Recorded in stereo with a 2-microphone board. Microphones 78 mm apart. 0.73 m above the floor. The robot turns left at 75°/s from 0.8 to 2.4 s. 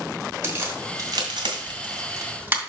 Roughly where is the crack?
Right.